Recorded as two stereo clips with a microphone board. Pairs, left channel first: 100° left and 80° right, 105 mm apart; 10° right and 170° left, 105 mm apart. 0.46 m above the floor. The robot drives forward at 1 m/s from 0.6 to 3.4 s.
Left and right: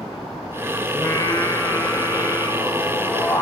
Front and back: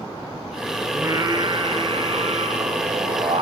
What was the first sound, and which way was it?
Singing, 130° left.